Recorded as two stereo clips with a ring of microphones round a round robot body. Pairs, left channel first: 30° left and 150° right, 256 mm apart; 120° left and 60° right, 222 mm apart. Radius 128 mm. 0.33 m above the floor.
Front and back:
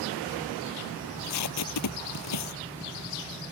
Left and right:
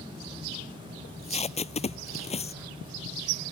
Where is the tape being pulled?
55° left.